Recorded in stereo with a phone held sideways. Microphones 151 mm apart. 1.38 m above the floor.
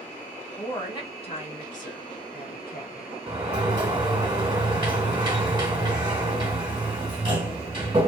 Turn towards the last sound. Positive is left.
turn(degrees=-30)  # may be behind; listen again after turning